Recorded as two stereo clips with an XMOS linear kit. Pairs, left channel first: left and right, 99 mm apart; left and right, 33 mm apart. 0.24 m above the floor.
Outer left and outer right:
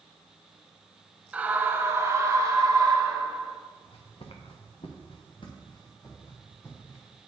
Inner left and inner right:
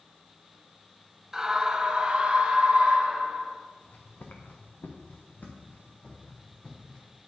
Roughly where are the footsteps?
Left.